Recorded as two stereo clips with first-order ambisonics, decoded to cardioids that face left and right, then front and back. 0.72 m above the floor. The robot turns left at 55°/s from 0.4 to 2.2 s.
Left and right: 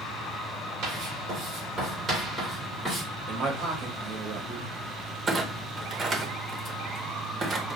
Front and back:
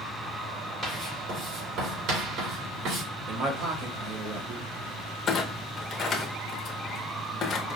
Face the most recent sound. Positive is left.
turn(degrees=-35)